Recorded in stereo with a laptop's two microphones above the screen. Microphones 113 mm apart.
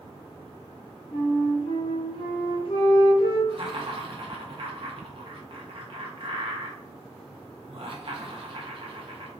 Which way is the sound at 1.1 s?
50° left (ahead or behind).